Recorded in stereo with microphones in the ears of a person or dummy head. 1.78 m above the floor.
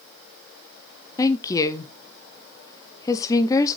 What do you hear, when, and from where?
1.2 s a woman speaking: 20° left (ahead or behind), 0.9 m